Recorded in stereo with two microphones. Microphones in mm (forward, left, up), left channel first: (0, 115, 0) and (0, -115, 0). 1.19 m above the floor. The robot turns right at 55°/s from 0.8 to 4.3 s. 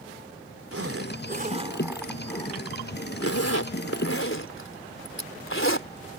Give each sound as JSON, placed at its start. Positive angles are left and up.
{"t": 0.7, "sound": "a zipper", "side_deg": -70}